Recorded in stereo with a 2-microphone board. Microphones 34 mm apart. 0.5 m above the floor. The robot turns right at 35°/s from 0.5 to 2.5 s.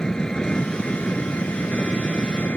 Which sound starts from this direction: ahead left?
An engine running, at 0.0 s.